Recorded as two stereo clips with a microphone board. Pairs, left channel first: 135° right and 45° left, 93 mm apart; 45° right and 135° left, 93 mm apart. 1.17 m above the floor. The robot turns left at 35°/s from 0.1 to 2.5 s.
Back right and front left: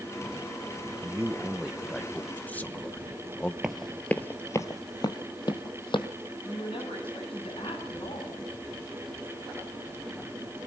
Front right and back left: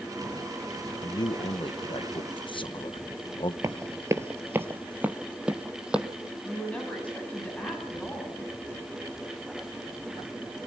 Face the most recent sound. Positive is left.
turn(degrees=-120)